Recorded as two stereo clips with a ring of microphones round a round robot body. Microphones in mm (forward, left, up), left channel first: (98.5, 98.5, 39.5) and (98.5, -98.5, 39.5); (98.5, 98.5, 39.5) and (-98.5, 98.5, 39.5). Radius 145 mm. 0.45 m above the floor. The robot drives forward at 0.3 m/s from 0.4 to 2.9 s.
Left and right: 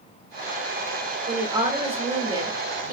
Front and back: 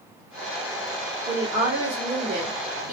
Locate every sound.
1.3 s a woman speaking: 130° right, 1.1 m; by 2.9 s 150° right, 1.4 m